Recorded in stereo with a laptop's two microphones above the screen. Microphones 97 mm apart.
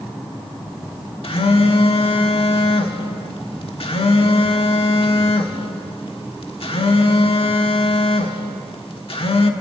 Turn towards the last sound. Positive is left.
turn(degrees=70)  # may be behind; listen again after turning